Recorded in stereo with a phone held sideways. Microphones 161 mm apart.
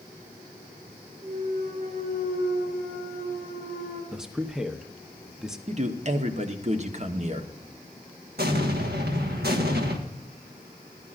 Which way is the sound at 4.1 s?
5° right (ahead or behind).